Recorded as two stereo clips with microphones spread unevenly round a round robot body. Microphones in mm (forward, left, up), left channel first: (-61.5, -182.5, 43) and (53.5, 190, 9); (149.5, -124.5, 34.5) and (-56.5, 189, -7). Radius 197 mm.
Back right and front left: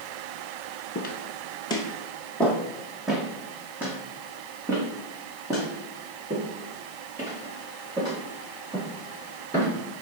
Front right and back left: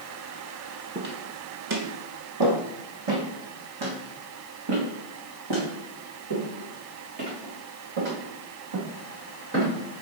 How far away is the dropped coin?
No dropped coin in this recording.